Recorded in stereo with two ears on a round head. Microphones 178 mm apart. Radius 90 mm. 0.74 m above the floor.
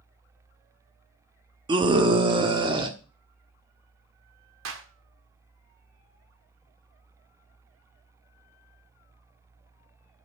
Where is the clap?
75° right (ahead or behind), 1.6 m.